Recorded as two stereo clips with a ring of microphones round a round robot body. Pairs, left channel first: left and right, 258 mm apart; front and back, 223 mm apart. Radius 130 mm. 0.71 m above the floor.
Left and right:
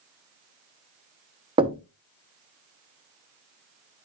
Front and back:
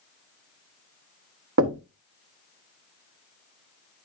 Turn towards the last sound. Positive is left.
turn(degrees=-160)